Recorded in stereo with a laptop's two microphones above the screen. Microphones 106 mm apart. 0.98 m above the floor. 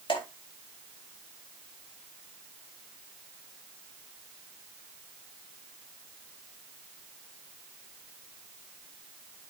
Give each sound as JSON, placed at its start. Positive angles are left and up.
{"t": 0.1, "sound": "dripping", "side_deg": 55, "distance_m": 1.6}